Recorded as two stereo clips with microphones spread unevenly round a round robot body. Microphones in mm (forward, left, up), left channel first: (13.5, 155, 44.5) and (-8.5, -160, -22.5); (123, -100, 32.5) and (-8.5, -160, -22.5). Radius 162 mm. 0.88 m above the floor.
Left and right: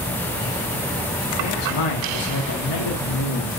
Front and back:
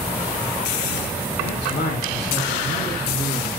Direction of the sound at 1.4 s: 55° left.